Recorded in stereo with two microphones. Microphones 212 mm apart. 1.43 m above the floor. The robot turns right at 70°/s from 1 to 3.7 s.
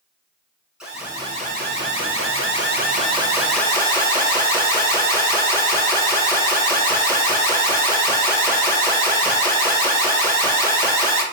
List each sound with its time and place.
0.8 s an alarm: 175° right, 1.2 m; by 11.2 s 15° left, 1.2 m